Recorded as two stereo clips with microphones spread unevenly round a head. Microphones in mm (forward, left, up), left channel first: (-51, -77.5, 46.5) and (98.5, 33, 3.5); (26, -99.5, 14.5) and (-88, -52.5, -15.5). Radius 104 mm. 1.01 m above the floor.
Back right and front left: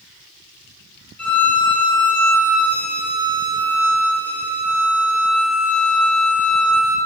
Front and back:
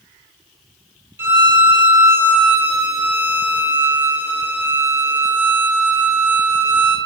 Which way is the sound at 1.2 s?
125° right.